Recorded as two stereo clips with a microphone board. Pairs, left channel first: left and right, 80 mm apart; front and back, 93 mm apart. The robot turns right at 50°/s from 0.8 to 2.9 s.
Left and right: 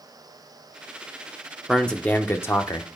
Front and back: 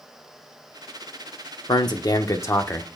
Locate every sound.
1.7 s a man speaking: 5° left, 0.9 m; by 3.0 s 65° left, 0.9 m